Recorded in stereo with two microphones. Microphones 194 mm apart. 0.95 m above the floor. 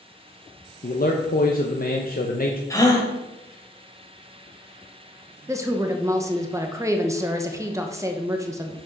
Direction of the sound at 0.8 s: 50° left (ahead or behind).